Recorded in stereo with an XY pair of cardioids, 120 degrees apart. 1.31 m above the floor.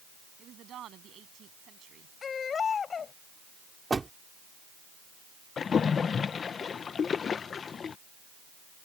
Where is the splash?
40° left.